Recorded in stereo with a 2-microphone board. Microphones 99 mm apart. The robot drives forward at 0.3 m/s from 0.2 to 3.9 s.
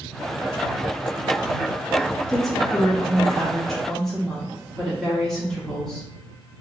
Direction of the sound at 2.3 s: 5° left (ahead or behind).